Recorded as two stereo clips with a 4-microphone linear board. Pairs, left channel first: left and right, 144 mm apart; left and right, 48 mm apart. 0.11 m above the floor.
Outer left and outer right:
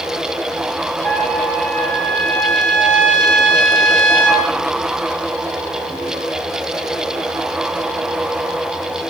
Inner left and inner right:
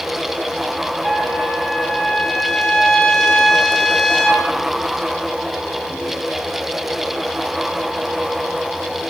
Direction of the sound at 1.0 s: 10° left (ahead or behind).